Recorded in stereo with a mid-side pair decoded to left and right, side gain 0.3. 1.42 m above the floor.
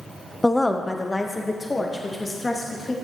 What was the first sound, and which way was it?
A woman speaking, 15° left.